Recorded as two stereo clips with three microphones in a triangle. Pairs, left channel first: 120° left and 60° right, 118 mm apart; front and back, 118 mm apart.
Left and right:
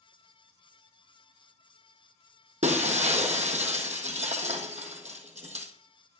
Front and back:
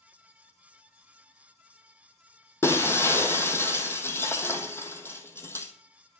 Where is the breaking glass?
70° right, 1.6 m.